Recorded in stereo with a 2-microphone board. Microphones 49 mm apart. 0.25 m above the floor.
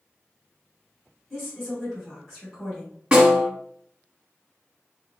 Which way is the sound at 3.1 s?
20° right (ahead or behind).